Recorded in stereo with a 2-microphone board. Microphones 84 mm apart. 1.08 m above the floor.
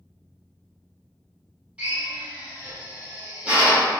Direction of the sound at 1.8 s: 15° right (ahead or behind).